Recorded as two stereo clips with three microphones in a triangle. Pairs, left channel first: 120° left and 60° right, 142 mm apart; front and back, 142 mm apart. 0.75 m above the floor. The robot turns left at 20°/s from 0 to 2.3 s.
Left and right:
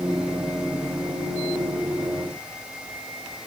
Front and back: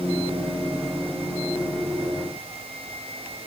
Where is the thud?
No thud in this recording.